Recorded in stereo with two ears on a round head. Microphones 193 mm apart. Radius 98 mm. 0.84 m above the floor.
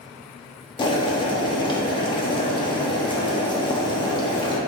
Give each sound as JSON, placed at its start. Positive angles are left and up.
{"t": 0.8, "sound": "boiling", "side_deg": 20, "distance_m": 1.3}